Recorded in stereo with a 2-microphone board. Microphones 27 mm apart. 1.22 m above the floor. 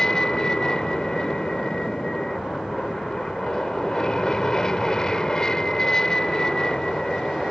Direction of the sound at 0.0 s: 25° left (ahead or behind).